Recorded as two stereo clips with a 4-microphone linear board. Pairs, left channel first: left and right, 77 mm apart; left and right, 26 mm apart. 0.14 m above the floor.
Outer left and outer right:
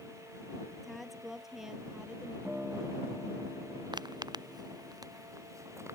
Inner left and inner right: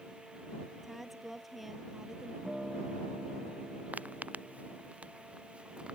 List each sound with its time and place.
0.8 s a woman speaking: centre (ahead or behind); by 2.4 s 10° right (ahead or behind)
2.5 s a guitar: 10° right (ahead or behind)
3.9 s footsteps: 70° right (ahead or behind); by 6.0 s 35° right (ahead or behind)